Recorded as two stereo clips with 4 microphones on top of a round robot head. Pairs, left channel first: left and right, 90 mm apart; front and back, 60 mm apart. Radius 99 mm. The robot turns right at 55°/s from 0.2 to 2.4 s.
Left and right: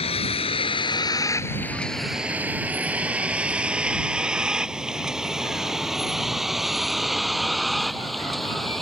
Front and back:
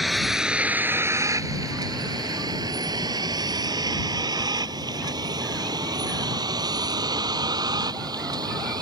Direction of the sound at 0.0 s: 90° left.